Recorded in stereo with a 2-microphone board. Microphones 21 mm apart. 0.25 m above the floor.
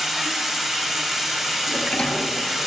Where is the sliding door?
80° left, 1.6 m.